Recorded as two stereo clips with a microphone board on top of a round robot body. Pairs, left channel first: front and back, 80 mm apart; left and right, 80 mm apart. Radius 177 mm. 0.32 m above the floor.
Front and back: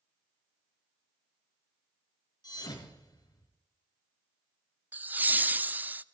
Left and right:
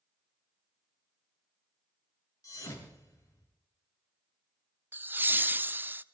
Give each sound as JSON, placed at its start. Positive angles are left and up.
{"t": 2.4, "sound": "a thud", "azimuth_deg": 40, "distance_m": 3.5}
{"t": 4.9, "sound": "laughter", "azimuth_deg": -130, "distance_m": 0.9}